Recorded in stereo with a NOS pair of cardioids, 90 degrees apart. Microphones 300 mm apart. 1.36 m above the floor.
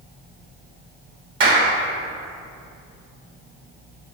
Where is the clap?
40° right, 2.5 m.